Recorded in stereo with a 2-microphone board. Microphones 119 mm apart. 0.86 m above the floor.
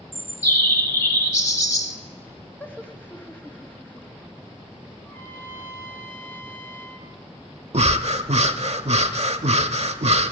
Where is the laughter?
15° left (ahead or behind), 1.1 m.